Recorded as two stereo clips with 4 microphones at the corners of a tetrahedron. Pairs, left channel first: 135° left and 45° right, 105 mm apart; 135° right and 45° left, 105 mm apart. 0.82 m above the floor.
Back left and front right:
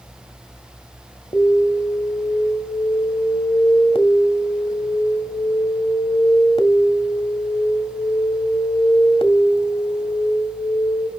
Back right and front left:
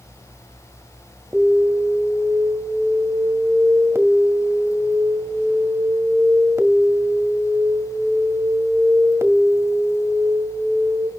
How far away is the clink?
No clink in this recording.